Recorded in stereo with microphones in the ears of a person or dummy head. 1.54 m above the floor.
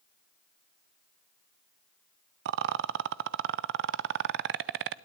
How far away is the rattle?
About 0.6 m.